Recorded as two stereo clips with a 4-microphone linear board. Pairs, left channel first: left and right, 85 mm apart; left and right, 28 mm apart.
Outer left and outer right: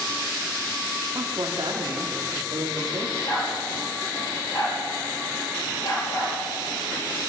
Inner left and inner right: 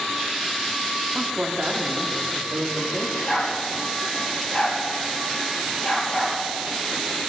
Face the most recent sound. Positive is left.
turn(degrees=55)  # may be behind; listen again after turning